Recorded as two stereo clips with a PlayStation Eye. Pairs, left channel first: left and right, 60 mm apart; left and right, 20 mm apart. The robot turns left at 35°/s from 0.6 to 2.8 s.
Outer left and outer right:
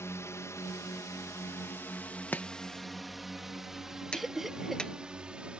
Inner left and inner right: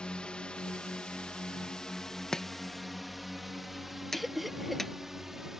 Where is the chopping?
30° left (ahead or behind); by 4.9 s 15° left (ahead or behind).